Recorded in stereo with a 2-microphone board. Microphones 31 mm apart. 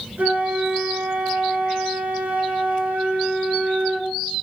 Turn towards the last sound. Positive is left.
turn(degrees=-90)